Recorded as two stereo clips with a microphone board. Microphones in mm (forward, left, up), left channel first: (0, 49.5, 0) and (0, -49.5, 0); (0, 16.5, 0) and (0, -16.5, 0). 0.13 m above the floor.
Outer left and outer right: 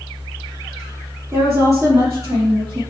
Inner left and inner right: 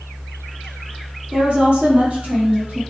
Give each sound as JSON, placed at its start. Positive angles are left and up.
{"t": 1.3, "sound": "a woman speaking", "side_deg": -30, "distance_m": 3.5}